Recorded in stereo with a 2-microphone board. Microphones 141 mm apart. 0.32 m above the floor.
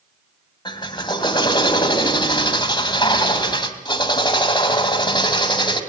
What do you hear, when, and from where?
0.7 s a drill: 35° left (ahead or behind), 2.5 m